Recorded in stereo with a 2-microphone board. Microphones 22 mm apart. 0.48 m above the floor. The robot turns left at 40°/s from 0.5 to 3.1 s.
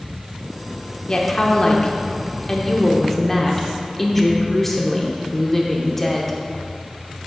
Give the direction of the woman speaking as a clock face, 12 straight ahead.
9 o'clock.